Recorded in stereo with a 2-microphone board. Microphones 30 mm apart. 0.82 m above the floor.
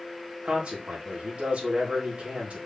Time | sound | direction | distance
0.5 | a man speaking | 45° right (ahead or behind) | 1.4 m